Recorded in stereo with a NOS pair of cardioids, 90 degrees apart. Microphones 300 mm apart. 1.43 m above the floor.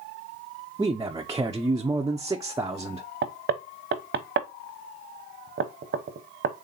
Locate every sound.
0.8 s a man speaking: 10° right, 0.5 m
3.2 s knocking: 40° right, 0.9 m